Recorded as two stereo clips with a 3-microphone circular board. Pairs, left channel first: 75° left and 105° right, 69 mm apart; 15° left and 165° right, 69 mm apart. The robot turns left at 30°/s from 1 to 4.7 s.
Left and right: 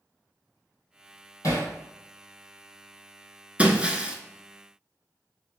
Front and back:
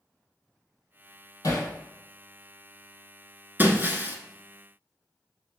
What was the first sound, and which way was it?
Hammering, 35° left.